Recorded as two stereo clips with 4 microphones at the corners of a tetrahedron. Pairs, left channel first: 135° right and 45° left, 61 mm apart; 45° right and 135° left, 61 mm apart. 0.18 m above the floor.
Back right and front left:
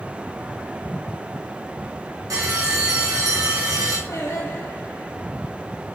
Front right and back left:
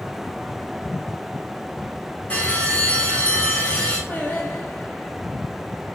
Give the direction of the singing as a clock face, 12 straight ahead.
3 o'clock.